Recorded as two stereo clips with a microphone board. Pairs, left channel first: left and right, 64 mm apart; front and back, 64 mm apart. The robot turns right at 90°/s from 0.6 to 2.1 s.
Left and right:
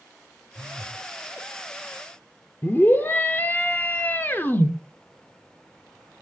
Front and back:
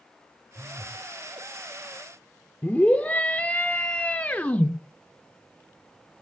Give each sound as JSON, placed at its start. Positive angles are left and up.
{"t": 0.6, "sound": "a phone buzzing", "azimuth_deg": -140, "distance_m": 1.5}
{"t": 2.6, "sound": "a scream", "azimuth_deg": 55, "distance_m": 0.9}